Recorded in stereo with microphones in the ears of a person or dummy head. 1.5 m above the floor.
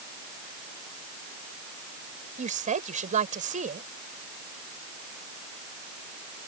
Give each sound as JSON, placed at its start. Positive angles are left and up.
{"t": 2.4, "sound": "a woman speaking", "side_deg": -25}